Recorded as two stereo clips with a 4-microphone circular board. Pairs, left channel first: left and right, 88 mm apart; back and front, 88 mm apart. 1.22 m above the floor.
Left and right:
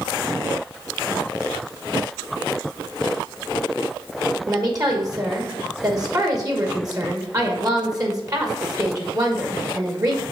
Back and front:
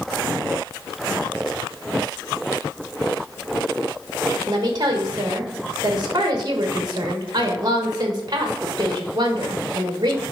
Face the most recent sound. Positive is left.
turn(degrees=-40)